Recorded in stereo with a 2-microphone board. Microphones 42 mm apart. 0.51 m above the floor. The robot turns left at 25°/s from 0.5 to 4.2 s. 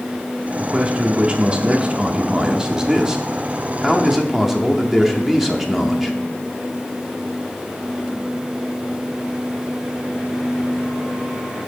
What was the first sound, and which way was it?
A man speaking, 20° right (ahead or behind).